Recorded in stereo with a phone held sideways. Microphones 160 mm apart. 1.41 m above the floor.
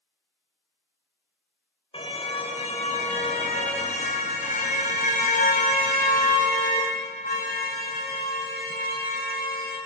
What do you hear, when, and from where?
1.9 s a car horn: 35° left (ahead or behind), 3 m; by 9.8 s 70° left (ahead or behind), 7 m